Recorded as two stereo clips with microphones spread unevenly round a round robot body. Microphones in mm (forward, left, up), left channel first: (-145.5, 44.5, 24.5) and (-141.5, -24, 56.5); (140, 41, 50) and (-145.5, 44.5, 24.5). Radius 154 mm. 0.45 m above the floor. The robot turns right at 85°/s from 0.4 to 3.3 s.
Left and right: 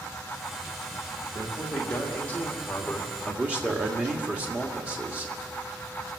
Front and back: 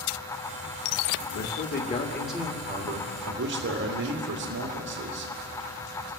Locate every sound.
1.4 s a man speaking: 15° left, 1.8 m; by 5.3 s straight behind, 1.8 m